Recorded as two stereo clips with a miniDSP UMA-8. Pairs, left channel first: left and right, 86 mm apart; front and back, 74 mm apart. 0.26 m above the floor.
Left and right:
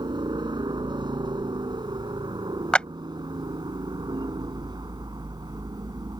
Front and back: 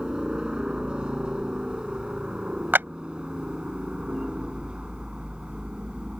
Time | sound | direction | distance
0.0 | a helicopter | 100° right | ?
2.7 | a clap | 155° left | ?